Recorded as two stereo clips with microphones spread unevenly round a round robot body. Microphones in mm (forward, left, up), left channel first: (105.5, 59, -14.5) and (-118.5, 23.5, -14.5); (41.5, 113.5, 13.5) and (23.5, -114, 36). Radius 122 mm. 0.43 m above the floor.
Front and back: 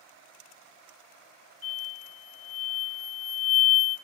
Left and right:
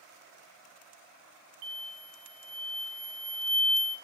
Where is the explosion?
75° right, 0.6 m.